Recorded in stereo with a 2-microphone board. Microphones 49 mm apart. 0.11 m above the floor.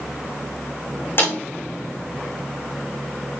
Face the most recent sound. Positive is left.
turn(degrees=45)  # may be behind; listen again after turning